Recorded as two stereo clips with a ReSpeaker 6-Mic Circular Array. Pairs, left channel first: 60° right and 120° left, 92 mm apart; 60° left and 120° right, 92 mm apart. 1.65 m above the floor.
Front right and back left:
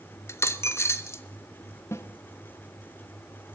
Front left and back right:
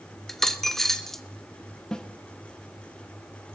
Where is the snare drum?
20° right, 1.2 m.